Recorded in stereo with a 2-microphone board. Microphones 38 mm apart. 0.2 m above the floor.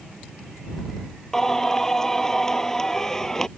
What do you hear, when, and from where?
1.3 s singing: 15° left (ahead or behind)